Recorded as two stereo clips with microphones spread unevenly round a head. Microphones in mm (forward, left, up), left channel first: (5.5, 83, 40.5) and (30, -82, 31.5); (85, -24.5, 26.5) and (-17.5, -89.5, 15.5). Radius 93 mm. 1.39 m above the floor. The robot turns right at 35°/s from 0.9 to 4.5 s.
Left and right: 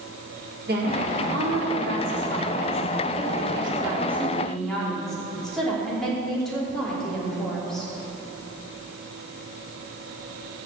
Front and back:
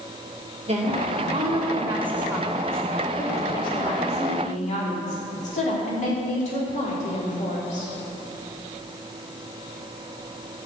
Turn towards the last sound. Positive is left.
turn(degrees=10)